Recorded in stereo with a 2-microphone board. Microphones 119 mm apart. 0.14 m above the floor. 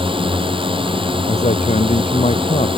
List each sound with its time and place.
0.0 s a drone: 45° right (ahead or behind)
1.3 s a man speaking: 75° left (ahead or behind)